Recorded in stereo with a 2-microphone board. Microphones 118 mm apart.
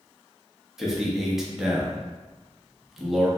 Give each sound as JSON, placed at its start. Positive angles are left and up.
{"t": 0.8, "sound": "a man speaking", "side_deg": -5, "distance_m": 0.7}